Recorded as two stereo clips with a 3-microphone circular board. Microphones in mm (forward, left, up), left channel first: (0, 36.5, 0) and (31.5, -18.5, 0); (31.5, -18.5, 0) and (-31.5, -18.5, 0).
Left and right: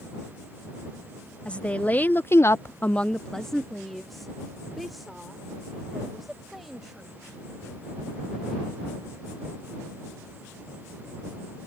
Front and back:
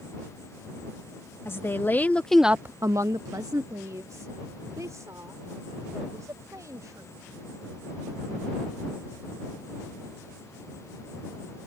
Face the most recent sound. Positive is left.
turn(degrees=-150)